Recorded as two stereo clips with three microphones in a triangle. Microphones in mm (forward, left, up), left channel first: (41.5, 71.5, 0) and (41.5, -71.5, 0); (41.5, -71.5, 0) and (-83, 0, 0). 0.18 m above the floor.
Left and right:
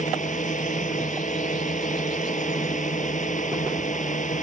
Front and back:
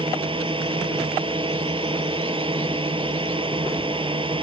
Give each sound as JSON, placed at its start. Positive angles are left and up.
{"t": 0.0, "sound": "a drone", "azimuth_deg": 100}